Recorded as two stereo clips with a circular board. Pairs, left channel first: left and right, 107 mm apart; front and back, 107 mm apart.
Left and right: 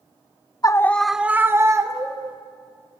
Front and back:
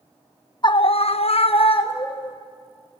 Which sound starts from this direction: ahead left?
A scream, at 0.6 s.